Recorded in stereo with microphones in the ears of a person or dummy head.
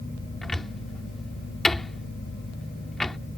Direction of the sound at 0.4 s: Centre (ahead or behind).